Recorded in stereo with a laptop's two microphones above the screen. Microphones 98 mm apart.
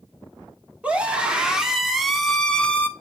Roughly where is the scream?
Centre.